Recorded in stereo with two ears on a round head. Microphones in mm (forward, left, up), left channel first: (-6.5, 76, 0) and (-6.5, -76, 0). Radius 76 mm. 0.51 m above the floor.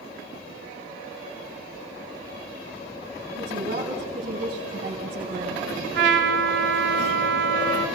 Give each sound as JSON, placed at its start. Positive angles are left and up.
{"t": 3.4, "sound": "a woman speaking", "side_deg": -55, "distance_m": 5.5}
{"t": 5.9, "sound": "a trumpet", "side_deg": -75, "distance_m": 2.5}